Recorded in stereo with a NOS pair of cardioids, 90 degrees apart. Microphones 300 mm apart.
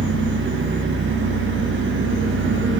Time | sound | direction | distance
0.0 | an engine running | 40° right | 1.1 m